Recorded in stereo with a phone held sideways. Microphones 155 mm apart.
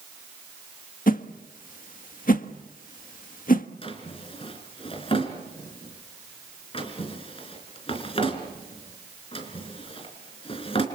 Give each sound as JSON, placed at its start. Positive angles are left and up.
{"t": 1.1, "sound": "a whoosh", "side_deg": 65, "distance_m": 1.4}
{"t": 3.8, "sound": "a drawer", "side_deg": 35, "distance_m": 3.5}